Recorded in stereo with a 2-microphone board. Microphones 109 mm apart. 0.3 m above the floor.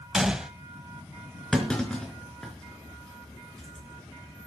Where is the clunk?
5° left (ahead or behind), 4 m.